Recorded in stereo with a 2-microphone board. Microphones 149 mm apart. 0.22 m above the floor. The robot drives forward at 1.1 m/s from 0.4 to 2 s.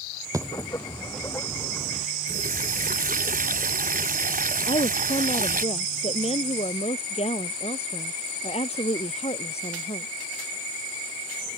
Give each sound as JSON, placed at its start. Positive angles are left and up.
{"t": 0.3, "sound": "a dropped coin", "side_deg": -20}
{"t": 2.3, "sound": "a running tap", "side_deg": -65}
{"t": 4.7, "sound": "a woman speaking", "side_deg": 40}